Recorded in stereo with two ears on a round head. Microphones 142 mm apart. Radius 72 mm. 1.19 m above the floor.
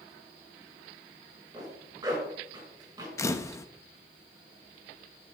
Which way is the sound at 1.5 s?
25° right (ahead or behind).